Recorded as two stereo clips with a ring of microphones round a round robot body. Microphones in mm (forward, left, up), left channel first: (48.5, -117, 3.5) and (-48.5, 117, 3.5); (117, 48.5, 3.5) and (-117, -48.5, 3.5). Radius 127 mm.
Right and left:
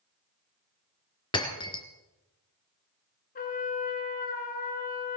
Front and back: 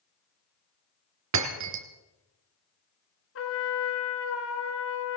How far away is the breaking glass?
About 2.5 m.